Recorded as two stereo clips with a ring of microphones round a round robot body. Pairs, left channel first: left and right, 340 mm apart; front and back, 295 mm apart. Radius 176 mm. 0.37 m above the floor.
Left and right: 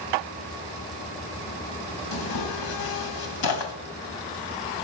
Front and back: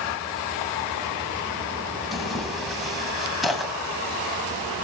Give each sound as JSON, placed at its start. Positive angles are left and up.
{"t": 2.1, "sound": "tearing paper", "azimuth_deg": 90, "distance_m": 2.5}